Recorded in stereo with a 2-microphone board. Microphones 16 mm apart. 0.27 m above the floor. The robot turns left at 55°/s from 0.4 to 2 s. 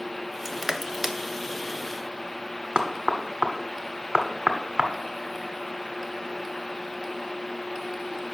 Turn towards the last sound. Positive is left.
turn(degrees=-55)  # may be behind; listen again after turning